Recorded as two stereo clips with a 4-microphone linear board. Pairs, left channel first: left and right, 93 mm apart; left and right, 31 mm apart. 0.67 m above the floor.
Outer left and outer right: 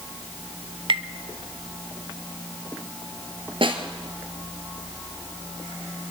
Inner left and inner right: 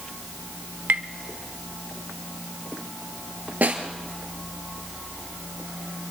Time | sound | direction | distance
0.9 | tapping | 80° right | 1.0 m
3.6 | a snare drum | 75° right (ahead or behind) | 2 m